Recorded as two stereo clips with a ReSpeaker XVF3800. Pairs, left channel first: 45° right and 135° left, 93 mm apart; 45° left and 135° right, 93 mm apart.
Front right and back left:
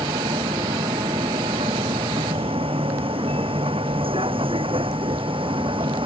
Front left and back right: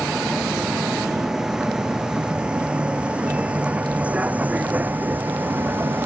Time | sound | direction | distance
0.0 | a vehicle | 140° left | ?